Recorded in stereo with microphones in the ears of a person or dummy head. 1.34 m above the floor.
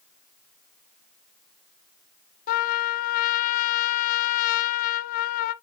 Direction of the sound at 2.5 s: 45° left (ahead or behind).